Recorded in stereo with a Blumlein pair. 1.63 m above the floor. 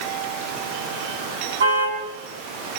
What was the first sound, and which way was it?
A car horn, 65° right.